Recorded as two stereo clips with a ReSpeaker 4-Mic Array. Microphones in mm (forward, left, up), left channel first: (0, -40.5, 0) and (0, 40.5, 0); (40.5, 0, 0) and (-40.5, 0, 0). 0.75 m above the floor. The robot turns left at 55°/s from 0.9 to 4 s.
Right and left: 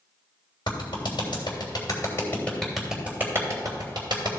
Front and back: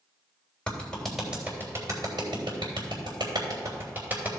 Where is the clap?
80° right, 3 m; by 4.3 s 110° left, 3 m.